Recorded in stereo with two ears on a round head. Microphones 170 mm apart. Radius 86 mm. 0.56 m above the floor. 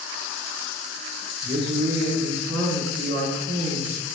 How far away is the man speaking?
About 1.2 m.